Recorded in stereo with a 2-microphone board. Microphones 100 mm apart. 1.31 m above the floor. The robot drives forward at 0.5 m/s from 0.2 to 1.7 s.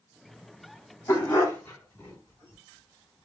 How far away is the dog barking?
About 1.9 m.